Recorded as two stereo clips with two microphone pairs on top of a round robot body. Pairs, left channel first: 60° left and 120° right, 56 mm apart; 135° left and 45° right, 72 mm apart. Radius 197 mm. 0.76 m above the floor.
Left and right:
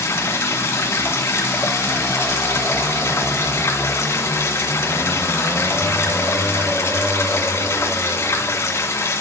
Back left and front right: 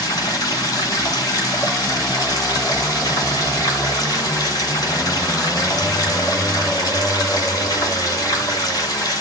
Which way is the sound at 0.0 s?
100° left.